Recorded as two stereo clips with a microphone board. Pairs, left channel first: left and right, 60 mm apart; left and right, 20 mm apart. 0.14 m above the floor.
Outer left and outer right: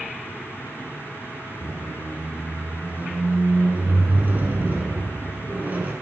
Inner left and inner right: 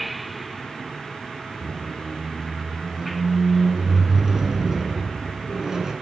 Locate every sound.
1.6 s a squeak: 30° right (ahead or behind), 1.1 m